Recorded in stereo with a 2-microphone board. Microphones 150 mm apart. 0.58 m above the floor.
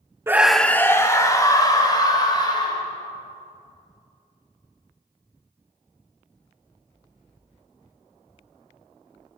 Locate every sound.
0.3 s a scream: 15° right (ahead or behind), 0.6 m; by 2.8 s 30° left (ahead or behind), 3.5 m